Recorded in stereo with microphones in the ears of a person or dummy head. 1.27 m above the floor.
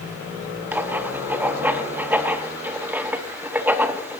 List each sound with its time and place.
0.7 s writing: 15° right (ahead or behind), 0.8 m